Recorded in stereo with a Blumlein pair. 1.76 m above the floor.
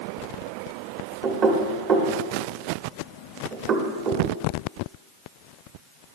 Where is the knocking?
25° right, 1.2 m.